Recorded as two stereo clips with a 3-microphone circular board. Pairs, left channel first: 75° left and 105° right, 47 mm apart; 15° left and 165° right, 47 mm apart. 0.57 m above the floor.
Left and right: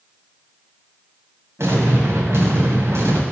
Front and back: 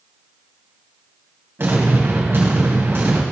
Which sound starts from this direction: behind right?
An explosion, at 1.6 s.